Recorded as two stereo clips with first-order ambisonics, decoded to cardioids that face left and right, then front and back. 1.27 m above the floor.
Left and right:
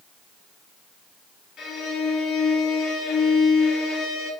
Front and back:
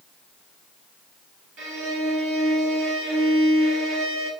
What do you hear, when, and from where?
1.6 s a violin: 150° left, 1.7 m